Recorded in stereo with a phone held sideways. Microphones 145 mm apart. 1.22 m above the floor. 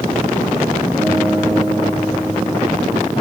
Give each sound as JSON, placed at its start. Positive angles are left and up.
{"t": 1.0, "sound": "a guitar", "side_deg": -10, "distance_m": 10.0}